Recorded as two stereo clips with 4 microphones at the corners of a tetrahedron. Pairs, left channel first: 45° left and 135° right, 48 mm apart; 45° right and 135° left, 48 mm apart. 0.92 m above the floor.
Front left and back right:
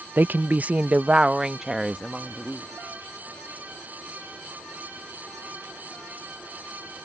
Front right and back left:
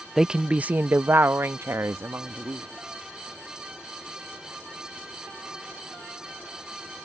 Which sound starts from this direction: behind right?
A woman speaking, at 0.2 s.